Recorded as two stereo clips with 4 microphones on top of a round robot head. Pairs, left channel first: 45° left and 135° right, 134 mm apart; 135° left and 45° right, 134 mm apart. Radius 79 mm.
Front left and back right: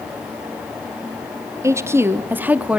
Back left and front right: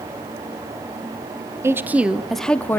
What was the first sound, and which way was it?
A woman speaking, 95° right.